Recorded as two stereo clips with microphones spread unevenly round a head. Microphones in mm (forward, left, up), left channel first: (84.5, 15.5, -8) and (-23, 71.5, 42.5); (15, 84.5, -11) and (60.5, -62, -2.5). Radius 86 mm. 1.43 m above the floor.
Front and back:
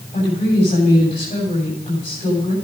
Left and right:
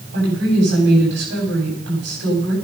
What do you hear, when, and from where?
0.1 s a woman speaking: 80° right, 8.5 m